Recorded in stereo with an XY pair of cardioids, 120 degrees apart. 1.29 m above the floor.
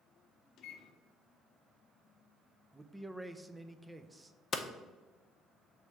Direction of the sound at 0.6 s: 70° left.